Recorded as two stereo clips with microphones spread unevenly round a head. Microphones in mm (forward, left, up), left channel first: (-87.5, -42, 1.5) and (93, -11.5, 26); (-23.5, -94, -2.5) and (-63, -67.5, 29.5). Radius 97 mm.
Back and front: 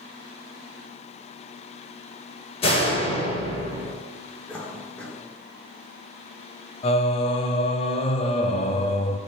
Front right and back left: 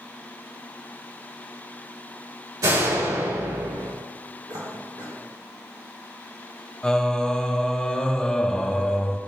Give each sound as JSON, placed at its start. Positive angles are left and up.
{"t": 2.6, "sound": "a door slam", "azimuth_deg": 125, "distance_m": 4.5}
{"t": 4.5, "sound": "a cough", "azimuth_deg": 105, "distance_m": 4.0}
{"t": 6.8, "sound": "singing", "azimuth_deg": 165, "distance_m": 0.9}